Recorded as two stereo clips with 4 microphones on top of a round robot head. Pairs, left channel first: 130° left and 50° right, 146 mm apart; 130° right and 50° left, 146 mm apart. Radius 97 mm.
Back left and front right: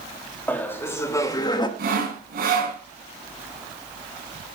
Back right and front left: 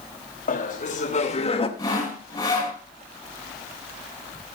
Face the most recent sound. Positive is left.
turn(degrees=-65)